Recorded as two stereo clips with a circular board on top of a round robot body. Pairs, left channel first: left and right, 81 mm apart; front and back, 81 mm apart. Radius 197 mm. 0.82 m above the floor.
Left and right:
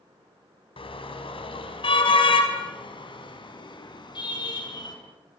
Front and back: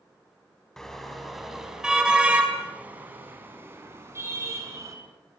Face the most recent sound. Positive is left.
turn(degrees=125)